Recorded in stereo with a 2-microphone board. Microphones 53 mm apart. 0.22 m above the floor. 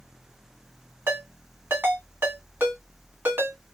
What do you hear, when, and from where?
1.1 s a ringtone: 45° right (ahead or behind), 1.5 m